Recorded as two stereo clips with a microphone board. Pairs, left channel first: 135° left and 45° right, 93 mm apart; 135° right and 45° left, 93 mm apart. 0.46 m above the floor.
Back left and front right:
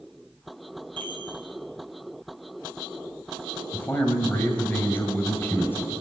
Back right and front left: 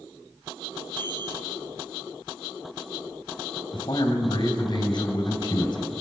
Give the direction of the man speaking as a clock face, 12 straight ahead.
5 o'clock.